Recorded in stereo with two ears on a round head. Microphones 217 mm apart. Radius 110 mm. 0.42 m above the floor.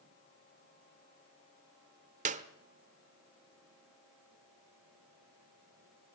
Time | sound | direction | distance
2.2 | a clap | 30° right (ahead or behind) | 1.0 m